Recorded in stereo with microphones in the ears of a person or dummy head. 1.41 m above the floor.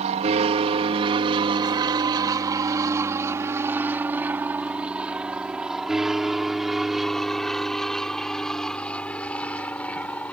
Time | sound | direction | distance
0.0 | an aircraft | 40° right (ahead or behind) | ?